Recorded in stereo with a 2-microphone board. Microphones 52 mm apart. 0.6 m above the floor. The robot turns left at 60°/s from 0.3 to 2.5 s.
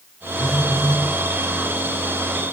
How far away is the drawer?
No drawer in this recording.